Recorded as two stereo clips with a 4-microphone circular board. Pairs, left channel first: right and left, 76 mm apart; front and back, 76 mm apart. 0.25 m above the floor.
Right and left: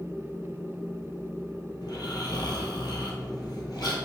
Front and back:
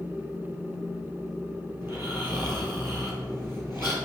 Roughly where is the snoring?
Behind right.